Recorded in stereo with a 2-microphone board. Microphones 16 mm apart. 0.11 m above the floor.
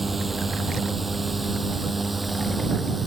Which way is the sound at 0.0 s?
15° right (ahead or behind).